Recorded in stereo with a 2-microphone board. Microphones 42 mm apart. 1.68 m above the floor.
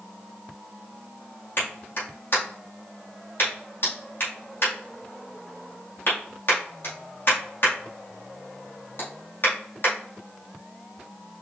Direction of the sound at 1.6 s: 60° left (ahead or behind).